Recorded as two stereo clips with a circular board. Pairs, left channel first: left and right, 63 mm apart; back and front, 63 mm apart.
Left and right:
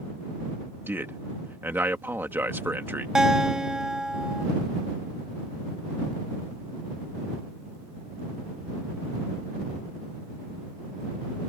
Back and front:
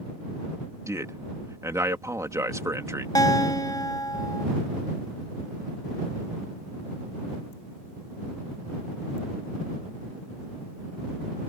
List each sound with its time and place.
0.9 s a man speaking: 35° right
3.1 s a guitar: 170° right